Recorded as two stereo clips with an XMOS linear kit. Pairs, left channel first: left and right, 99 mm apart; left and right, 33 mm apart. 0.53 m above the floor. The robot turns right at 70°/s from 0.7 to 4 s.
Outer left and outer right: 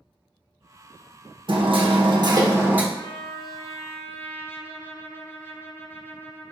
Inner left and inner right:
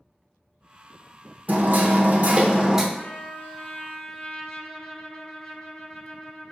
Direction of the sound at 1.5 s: 110° right.